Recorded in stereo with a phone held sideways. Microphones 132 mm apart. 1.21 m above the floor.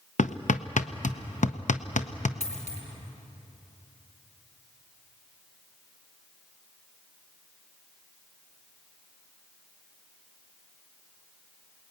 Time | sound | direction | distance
0.2 | hammering | 70° left (ahead or behind) | 0.8 m
2.4 | a dropped coin | 60° left (ahead or behind) | 3 m